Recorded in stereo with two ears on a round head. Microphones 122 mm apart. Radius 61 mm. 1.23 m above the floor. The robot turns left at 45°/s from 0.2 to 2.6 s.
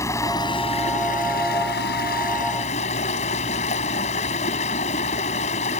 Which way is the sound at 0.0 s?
160° left.